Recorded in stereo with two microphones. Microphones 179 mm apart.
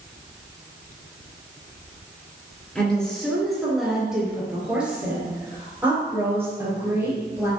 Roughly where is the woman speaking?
Centre.